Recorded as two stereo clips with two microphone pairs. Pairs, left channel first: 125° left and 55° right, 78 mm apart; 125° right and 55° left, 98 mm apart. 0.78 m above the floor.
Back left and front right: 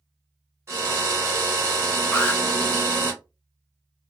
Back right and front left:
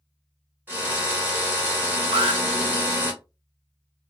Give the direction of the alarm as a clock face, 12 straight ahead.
10 o'clock.